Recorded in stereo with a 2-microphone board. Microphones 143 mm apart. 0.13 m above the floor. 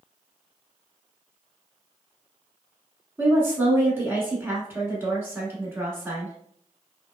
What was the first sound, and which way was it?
A woman speaking, 15° right (ahead or behind).